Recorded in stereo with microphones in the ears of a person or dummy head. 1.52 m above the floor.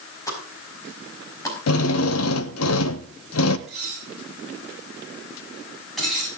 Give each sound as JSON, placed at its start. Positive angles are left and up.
{"t": 0.3, "sound": "a pop", "side_deg": 15, "distance_m": 5.0}
{"t": 1.7, "sound": "a drill", "side_deg": 90, "distance_m": 1.2}
{"t": 3.7, "sound": "dishes clattering", "side_deg": 0, "distance_m": 8.0}